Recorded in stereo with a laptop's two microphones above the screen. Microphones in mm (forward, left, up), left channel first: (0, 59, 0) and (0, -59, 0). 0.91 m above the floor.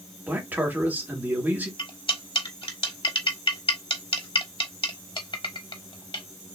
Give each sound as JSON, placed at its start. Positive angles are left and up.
{"t": 0.3, "sound": "a man speaking", "side_deg": -15, "distance_m": 1.7}
{"t": 1.8, "sound": "cutlery clinking", "side_deg": 45, "distance_m": 1.3}